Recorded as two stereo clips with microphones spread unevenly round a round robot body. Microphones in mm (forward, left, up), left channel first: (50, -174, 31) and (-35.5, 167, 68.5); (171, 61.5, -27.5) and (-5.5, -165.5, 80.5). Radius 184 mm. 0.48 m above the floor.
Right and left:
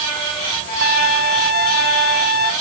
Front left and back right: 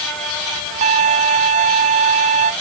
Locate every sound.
0.8 s a violin: 130° right